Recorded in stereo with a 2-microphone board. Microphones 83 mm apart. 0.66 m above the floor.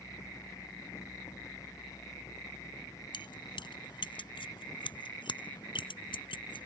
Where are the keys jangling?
70° left (ahead or behind); by 6.7 s 80° left.